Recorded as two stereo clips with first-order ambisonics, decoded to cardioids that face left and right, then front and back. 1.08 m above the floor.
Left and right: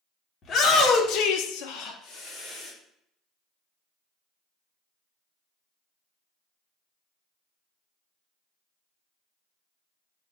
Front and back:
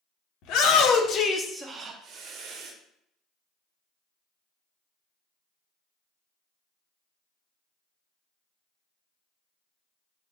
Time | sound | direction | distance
0.4 | a shout | 30° left | 1.0 m